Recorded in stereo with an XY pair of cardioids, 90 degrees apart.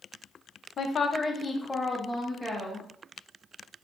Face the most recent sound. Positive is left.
turn(degrees=-10)